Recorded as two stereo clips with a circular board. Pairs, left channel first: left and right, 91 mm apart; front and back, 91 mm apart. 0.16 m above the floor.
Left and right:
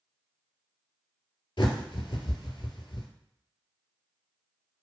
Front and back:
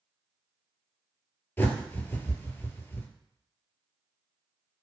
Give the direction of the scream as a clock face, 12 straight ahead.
I don't hear a scream.